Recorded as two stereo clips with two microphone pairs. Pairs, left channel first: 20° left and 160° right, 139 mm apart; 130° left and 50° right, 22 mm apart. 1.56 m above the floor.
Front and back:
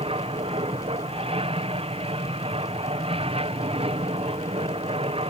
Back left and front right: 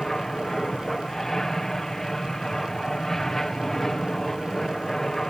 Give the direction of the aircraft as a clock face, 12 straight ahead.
6 o'clock.